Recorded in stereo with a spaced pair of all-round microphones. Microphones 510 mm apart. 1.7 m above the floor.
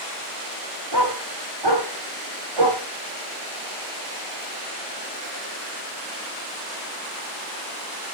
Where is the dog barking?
50° right (ahead or behind), 2 m; by 2.8 s 65° right (ahead or behind), 2.5 m.